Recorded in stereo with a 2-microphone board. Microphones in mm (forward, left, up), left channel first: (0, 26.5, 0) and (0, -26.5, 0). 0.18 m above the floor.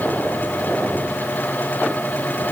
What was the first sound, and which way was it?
Only background noise.